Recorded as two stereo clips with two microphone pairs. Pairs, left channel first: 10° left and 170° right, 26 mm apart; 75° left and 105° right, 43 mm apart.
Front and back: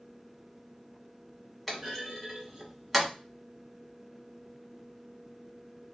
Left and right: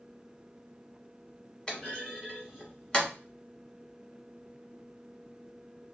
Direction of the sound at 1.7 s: 90° left.